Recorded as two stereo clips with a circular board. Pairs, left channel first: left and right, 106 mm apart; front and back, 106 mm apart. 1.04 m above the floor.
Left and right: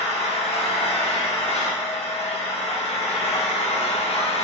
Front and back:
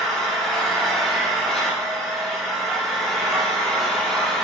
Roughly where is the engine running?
Left.